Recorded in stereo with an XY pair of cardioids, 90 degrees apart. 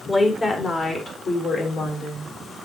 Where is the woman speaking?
30° left, 3.5 m; by 2.3 s 70° left, 3 m.